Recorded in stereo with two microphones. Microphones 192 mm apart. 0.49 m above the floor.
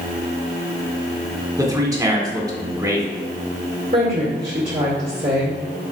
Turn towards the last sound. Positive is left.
turn(degrees=-45)  # may be behind; listen again after turning